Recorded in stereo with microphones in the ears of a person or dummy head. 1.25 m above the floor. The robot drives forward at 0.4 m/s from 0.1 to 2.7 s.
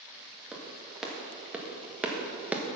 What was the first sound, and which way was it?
A clap, 5° right (ahead or behind).